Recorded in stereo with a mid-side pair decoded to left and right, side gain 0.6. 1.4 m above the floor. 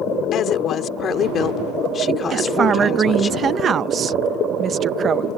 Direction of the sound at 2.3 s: 40° right.